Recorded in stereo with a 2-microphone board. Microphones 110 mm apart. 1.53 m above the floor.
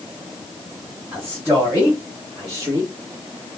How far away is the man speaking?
About 2.5 m.